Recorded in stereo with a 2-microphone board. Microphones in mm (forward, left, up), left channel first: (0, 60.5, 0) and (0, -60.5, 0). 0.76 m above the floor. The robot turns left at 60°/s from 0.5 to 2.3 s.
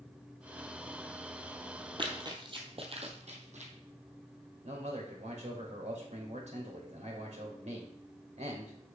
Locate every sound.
2.0 s running footsteps: 40° right (ahead or behind), 1.4 m; by 3.7 s 65° right (ahead or behind), 2 m
4.6 s a man speaking: 65° right (ahead or behind), 2.5 m